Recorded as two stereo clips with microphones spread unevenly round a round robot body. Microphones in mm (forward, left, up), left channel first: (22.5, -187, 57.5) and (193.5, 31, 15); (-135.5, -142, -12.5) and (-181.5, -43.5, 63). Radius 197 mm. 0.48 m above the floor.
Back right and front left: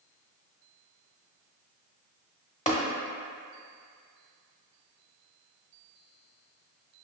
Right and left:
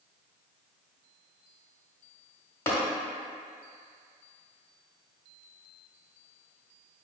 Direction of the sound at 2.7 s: 60° right.